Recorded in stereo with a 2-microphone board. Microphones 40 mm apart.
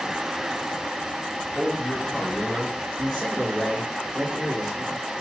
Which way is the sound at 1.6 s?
5° right (ahead or behind).